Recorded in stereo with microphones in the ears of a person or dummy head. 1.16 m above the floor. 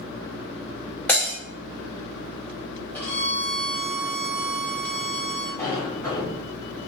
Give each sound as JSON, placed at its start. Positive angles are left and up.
{"t": 1.1, "sound": "breaking glass", "side_deg": 5, "distance_m": 0.8}
{"t": 2.9, "sound": "a violin", "side_deg": 5, "distance_m": 1.2}
{"t": 5.6, "sound": "a sliding door", "side_deg": 10, "distance_m": 1.7}